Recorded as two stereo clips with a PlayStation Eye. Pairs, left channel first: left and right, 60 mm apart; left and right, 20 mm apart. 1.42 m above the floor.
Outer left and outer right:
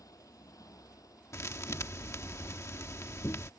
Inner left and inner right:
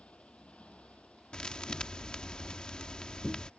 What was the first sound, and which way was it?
A motorcycle, 80° left.